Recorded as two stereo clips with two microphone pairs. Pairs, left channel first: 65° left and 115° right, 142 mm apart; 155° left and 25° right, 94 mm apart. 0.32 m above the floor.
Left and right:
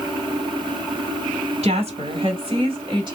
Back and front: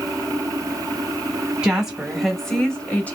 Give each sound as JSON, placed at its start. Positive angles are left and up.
{"t": 1.6, "sound": "a woman speaking", "azimuth_deg": -100, "distance_m": 1.7}